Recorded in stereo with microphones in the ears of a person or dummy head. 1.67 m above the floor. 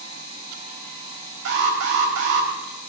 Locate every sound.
1.4 s an alarm: 75° right (ahead or behind), 4.5 m